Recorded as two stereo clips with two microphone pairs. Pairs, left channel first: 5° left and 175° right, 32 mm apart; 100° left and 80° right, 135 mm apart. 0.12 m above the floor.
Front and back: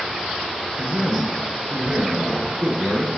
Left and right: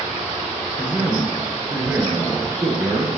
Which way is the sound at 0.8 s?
170° left.